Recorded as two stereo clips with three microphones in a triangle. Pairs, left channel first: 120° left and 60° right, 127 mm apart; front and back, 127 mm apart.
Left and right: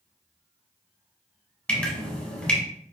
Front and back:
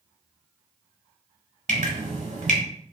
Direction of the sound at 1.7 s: 160° right.